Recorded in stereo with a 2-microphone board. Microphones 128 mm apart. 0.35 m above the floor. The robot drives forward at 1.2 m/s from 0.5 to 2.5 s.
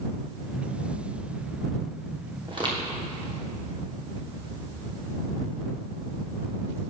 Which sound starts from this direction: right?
Footsteps, at 2.5 s.